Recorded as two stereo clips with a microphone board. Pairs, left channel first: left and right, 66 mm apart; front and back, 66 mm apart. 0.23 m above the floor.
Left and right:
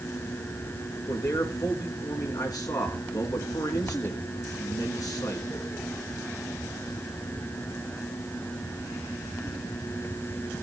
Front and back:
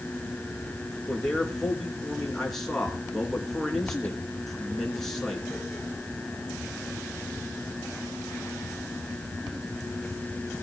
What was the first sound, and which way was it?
A man speaking, 85° left.